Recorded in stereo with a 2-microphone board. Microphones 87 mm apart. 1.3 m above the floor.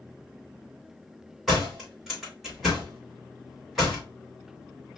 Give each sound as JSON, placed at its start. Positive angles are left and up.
{"t": 1.5, "sound": "a door slam", "side_deg": 0, "distance_m": 4.0}